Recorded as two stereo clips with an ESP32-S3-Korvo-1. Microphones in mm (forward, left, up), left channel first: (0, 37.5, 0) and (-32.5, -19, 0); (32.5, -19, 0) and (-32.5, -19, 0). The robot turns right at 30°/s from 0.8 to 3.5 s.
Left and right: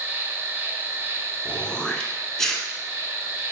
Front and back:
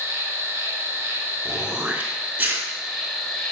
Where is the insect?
150° right, 0.8 m; by 3.5 s 70° right, 0.8 m.